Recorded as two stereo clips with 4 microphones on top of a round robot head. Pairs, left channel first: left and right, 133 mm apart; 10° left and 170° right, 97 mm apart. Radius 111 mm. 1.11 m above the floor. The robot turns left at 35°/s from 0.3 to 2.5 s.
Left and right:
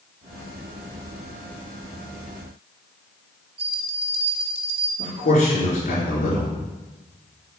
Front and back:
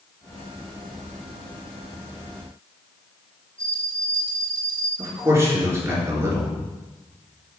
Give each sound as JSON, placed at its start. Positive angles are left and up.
{"t": 3.6, "sound": "a bell", "azimuth_deg": -95, "distance_m": 0.8}
{"t": 5.0, "sound": "a man speaking", "azimuth_deg": 135, "distance_m": 4.0}